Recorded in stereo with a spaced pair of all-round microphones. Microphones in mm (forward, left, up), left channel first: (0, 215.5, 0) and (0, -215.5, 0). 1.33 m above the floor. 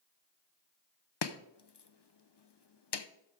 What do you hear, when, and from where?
1.2 s chopping: 70° left (ahead or behind), 0.6 m